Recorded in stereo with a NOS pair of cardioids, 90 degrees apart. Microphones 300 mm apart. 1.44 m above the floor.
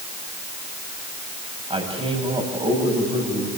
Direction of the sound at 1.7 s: 20° right.